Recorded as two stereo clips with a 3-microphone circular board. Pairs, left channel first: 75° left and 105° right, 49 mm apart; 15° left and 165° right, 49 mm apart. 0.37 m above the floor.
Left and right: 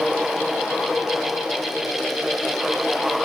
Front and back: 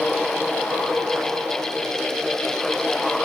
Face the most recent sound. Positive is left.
No sound to turn to.